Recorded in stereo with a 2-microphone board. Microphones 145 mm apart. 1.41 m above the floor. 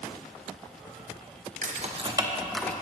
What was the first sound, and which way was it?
Keys jangling, 55° right (ahead or behind).